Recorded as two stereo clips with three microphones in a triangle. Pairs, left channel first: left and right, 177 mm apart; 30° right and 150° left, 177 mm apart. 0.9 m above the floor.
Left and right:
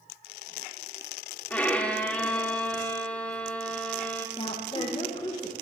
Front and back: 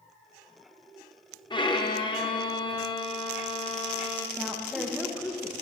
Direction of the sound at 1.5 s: 15° left.